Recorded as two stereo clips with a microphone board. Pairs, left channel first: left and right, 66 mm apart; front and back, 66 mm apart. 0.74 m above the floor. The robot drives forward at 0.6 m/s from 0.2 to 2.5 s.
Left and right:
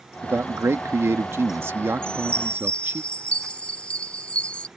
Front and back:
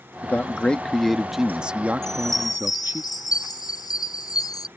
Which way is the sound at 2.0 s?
15° left.